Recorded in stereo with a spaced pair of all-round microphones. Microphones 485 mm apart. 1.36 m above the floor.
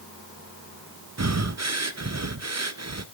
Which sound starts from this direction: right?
Breathing, at 1.2 s.